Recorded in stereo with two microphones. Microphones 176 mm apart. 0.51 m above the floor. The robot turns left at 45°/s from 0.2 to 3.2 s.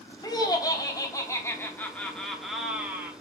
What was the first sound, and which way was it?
Laughter, 20° left (ahead or behind).